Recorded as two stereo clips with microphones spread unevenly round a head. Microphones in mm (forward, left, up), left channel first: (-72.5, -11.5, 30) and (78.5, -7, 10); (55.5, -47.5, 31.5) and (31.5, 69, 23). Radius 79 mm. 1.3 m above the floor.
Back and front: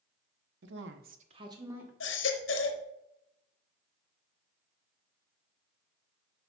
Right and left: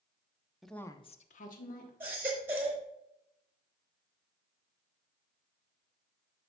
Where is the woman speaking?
15° left, 0.9 m; by 1.9 s 75° right, 1.7 m.